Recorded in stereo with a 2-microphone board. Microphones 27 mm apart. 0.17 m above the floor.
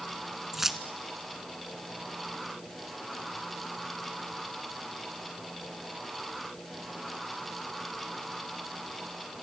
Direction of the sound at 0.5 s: 10° right (ahead or behind).